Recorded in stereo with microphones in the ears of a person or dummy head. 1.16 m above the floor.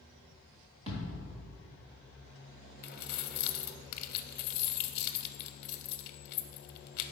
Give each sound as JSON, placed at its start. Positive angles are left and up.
{"t": 0.9, "sound": "a thud", "side_deg": -30, "distance_m": 1.2}
{"t": 2.8, "sound": "keys jangling", "side_deg": 55, "distance_m": 0.5}